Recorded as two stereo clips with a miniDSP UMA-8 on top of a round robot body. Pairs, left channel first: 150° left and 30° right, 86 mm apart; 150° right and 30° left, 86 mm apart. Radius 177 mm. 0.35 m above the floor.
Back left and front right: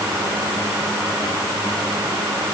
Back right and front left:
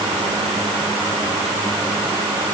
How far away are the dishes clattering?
I don't hear dishes clattering.